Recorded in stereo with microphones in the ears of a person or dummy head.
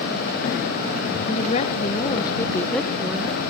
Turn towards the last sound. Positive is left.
turn(degrees=-10)  # may be behind; listen again after turning